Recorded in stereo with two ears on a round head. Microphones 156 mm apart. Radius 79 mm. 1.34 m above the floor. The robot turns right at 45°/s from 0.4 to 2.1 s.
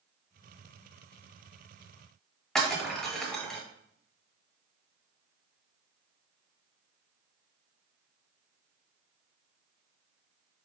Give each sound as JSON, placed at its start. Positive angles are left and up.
{"t": 2.5, "sound": "breaking glass", "side_deg": 5, "distance_m": 1.5}